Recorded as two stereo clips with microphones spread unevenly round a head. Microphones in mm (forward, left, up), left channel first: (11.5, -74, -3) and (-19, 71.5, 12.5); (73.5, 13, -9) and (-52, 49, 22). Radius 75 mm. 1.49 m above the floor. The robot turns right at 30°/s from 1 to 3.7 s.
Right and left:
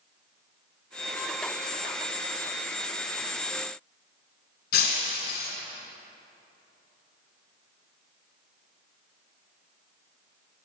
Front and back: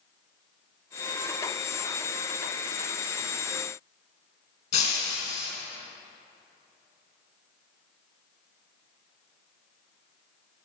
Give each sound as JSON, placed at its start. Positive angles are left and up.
{"t": 4.7, "sound": "breaking glass", "azimuth_deg": -70, "distance_m": 2.5}